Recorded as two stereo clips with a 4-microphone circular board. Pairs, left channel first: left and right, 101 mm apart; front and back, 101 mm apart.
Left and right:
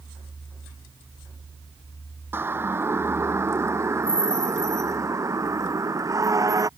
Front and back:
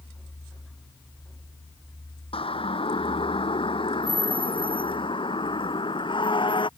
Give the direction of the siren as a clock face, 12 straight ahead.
1 o'clock.